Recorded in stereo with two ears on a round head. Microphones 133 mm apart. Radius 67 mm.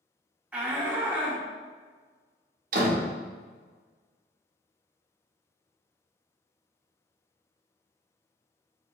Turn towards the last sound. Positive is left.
turn(degrees=-55)  # may be behind; listen again after turning